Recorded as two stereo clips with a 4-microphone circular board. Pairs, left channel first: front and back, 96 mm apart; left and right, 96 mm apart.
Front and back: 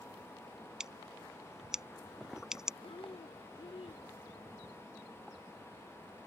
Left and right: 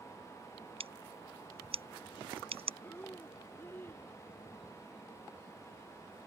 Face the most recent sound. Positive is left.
turn(degrees=20)